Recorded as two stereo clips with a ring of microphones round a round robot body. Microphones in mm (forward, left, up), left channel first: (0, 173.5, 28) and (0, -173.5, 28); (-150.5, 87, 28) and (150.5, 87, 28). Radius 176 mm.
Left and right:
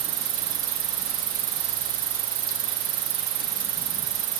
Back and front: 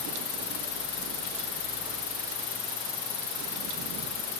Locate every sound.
0.0 s an insect: 125° right, 0.8 m